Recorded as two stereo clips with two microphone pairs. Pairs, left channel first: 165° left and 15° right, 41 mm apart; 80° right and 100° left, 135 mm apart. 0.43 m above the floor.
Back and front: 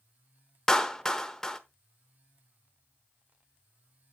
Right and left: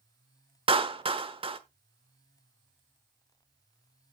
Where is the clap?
95° left, 1.0 m.